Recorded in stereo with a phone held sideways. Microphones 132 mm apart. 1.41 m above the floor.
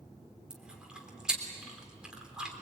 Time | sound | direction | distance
0.5 | chewing | 5° right (ahead or behind) | 3.5 m